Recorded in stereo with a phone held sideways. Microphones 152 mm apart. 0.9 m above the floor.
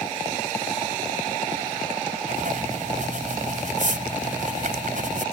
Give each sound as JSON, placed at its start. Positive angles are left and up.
{"t": 2.3, "sound": "writing", "side_deg": -65}